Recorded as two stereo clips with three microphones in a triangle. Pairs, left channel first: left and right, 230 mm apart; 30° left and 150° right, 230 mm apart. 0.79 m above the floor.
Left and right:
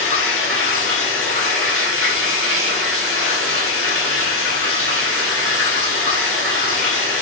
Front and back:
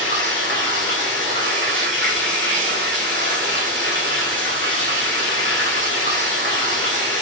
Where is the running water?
115° right, 2.5 m.